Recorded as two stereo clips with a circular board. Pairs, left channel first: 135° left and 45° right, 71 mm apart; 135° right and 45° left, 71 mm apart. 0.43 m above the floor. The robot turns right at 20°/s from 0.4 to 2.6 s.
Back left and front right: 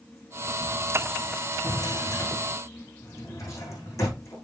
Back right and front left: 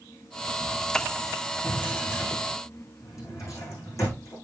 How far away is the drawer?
About 7 m.